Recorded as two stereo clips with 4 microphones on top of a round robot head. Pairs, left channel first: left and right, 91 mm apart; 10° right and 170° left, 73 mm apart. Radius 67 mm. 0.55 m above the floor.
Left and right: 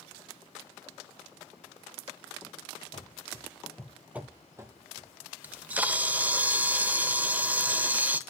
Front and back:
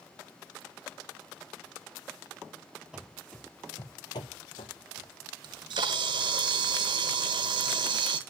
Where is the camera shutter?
160° right, 0.8 m.